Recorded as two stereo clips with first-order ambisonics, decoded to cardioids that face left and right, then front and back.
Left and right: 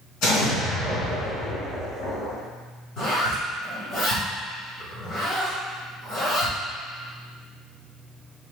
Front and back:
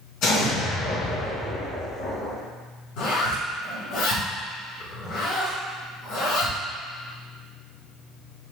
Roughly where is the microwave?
No microwave in this recording.